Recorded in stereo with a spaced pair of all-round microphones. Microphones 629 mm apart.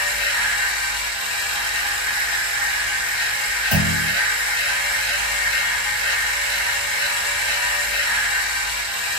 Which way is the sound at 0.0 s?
50° left (ahead or behind).